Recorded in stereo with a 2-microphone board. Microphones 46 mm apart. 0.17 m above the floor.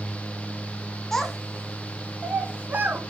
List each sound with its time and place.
1.1 s a child speaking: 10° left (ahead or behind), 1.5 m; by 3.0 s 45° right (ahead or behind), 1.7 m